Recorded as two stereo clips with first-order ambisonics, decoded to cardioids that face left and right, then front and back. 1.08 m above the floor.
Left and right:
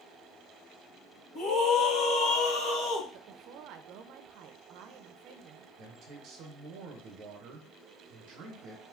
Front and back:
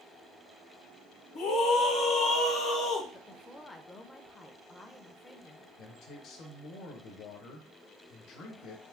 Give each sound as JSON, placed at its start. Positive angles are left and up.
{"t": 1.4, "sound": "a scream", "azimuth_deg": 45, "distance_m": 1.3}
{"t": 3.1, "sound": "a woman speaking", "azimuth_deg": -75, "distance_m": 0.6}
{"t": 5.8, "sound": "a man speaking", "azimuth_deg": -45, "distance_m": 1.1}